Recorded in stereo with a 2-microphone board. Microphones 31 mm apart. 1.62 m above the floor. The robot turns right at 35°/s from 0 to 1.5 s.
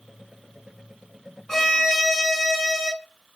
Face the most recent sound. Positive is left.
turn(degrees=15)  # may be behind; listen again after turning